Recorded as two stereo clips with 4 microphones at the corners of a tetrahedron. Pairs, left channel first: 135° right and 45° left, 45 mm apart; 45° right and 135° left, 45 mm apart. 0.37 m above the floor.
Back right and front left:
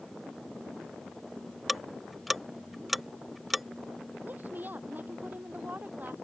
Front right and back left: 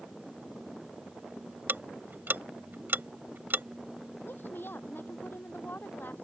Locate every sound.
1.7 s ticking: 130° left
4.2 s a woman speaking: 5° right